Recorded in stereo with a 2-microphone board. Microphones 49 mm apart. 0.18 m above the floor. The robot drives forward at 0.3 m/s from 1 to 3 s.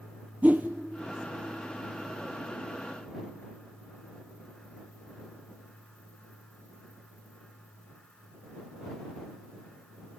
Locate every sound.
0.4 s a whoosh: 35° right (ahead or behind), 1.0 m